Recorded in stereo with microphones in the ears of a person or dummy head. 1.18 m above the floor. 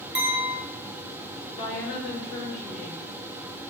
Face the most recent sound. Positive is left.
turn(degrees=10)  # may be behind; listen again after turning